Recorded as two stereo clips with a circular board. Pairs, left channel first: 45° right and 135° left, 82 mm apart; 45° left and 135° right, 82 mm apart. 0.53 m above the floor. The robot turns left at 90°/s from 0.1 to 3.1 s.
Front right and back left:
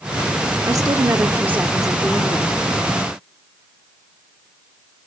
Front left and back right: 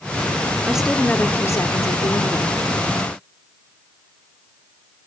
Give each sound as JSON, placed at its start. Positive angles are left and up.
{"t": 0.7, "sound": "a woman speaking", "azimuth_deg": 155, "distance_m": 1.1}